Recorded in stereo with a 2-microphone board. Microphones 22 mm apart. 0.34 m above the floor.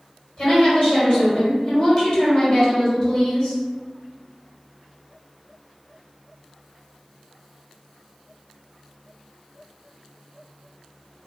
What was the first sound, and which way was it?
A woman speaking, 40° left (ahead or behind).